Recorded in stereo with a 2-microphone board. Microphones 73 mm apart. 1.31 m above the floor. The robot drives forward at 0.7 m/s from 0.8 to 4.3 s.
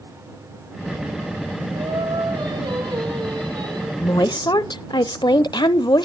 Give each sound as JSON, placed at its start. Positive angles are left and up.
{"t": 1.8, "sound": "singing", "side_deg": -80, "distance_m": 5.5}
{"t": 4.0, "sound": "a woman speaking", "side_deg": 55, "distance_m": 0.7}